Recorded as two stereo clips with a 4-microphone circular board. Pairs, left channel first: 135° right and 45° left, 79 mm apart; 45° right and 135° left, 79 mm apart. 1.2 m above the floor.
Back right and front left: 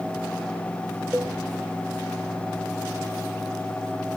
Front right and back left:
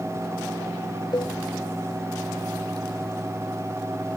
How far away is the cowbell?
About 1.1 m.